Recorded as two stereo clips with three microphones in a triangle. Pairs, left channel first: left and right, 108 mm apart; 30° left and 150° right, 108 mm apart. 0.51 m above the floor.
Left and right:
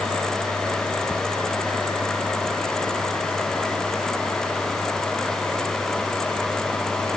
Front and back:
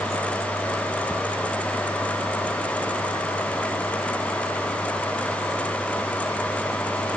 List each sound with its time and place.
Only background noise.